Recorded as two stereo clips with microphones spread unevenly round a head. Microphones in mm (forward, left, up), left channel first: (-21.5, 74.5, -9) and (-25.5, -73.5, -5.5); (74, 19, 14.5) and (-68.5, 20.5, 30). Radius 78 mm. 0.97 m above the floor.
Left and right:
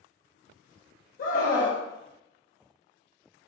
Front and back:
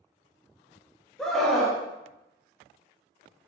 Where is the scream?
85° left, 0.7 m.